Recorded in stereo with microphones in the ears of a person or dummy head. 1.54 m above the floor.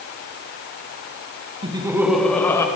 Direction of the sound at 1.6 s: 25° right (ahead or behind).